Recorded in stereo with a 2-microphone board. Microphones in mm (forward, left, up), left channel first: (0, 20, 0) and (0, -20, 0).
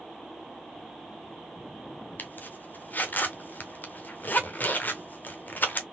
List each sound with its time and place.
2.2 s a zipper: 50° left (ahead or behind), 0.9 m